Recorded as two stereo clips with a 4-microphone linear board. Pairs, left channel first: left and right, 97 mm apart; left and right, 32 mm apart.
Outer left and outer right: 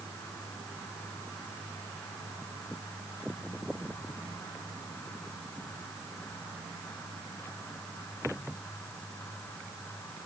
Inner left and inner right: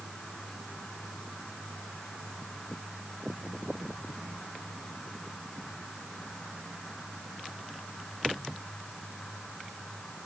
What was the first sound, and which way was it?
Only background noise.